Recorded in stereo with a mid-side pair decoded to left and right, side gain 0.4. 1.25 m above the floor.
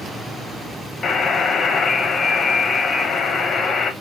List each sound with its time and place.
1.0 s a buzzer: 50° left, 0.7 m